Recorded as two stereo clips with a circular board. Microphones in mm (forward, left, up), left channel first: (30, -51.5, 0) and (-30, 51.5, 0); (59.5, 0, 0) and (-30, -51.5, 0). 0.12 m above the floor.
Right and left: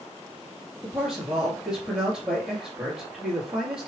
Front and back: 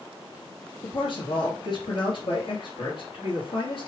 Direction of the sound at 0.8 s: 35° left.